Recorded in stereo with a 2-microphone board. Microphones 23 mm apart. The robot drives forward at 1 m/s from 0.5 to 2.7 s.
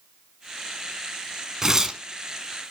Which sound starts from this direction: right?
Tearing paper, at 1.6 s.